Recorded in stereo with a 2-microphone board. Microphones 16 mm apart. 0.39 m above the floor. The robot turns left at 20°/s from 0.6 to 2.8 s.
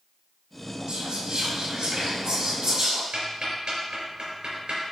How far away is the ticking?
About 3 m.